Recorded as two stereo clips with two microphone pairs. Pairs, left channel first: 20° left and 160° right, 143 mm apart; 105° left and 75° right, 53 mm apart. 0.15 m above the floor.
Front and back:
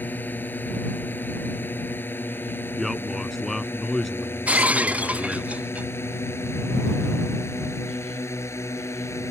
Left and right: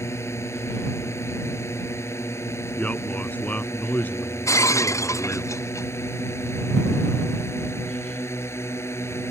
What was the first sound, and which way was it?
A drone, 95° left.